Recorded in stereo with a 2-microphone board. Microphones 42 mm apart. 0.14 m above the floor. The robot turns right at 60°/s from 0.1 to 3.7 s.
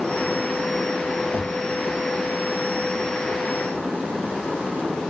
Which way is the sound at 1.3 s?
30° left (ahead or behind).